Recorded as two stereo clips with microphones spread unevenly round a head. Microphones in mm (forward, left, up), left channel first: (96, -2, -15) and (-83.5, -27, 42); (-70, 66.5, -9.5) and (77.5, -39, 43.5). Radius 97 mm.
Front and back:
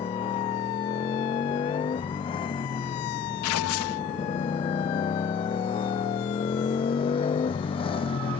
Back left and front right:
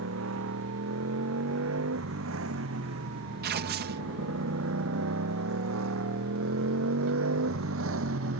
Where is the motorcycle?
60° right; by 8.4 s 55° right.